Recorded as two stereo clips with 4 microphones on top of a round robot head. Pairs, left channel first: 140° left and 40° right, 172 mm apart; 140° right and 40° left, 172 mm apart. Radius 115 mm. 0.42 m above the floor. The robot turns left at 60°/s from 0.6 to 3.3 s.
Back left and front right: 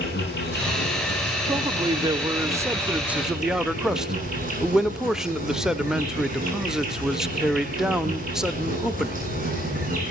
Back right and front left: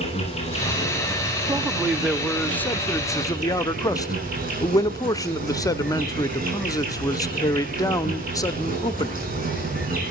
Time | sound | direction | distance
0.0 | an insect | 165° left | 7.5 m
1.5 | a man speaking | 10° right | 0.9 m